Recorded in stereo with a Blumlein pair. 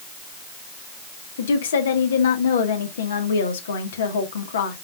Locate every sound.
1.4 s a woman speaking: 65° left, 1.7 m